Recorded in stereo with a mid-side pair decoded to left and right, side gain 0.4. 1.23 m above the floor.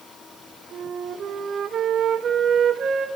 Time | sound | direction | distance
0.7 | a flute | 60° right | 1.1 m